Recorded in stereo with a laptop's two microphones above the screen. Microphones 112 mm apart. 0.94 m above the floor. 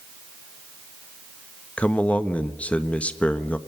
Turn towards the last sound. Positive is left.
turn(degrees=10)  # may be behind; listen again after turning